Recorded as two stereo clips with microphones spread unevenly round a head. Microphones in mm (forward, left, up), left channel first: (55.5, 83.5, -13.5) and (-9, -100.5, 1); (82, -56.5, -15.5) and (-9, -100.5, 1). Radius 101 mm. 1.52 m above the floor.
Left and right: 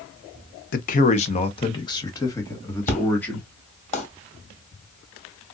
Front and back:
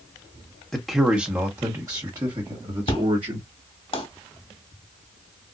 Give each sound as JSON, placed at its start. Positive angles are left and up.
{"t": 0.7, "sound": "a man speaking", "azimuth_deg": 115, "distance_m": 0.8}
{"t": 2.9, "sound": "an explosion", "azimuth_deg": 20, "distance_m": 2.0}